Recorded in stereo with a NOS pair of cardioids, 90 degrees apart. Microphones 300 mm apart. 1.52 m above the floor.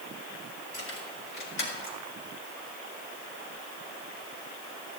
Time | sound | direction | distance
0.7 | keys jangling | 50° left | 5.5 m